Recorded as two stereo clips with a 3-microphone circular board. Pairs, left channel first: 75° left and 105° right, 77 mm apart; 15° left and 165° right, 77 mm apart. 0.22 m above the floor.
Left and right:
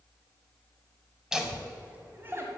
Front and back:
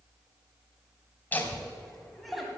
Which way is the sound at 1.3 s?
25° right.